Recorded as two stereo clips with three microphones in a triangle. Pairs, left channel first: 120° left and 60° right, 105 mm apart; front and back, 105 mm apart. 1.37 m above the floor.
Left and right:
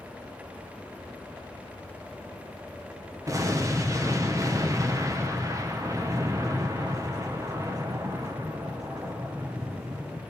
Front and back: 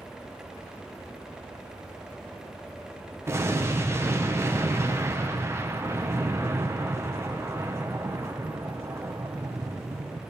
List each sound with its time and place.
3.3 s an explosion: 115° right, 1.2 m